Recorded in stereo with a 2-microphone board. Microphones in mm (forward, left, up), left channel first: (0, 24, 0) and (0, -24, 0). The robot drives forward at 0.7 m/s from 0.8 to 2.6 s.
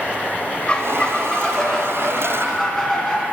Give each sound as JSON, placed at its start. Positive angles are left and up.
{"t": 0.7, "sound": "a squeak", "side_deg": 20, "distance_m": 0.7}